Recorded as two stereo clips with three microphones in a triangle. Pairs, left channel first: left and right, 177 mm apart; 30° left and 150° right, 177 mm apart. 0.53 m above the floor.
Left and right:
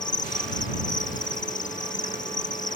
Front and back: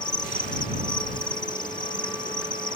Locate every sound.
0.0 s an insect: 85° left